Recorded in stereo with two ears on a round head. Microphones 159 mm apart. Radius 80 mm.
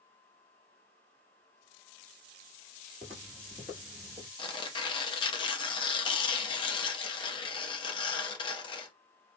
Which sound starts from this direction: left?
Tearing paper, at 4.4 s.